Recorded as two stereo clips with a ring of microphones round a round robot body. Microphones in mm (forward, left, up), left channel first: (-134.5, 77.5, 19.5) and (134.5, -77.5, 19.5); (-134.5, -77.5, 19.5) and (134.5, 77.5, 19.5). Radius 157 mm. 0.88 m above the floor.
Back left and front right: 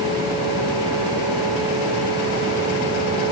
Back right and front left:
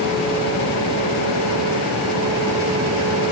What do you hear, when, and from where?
Only background noise.